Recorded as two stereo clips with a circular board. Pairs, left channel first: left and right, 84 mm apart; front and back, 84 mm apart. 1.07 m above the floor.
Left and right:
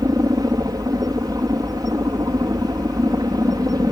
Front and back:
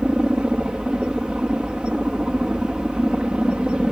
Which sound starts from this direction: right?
A helicopter, at 0.0 s.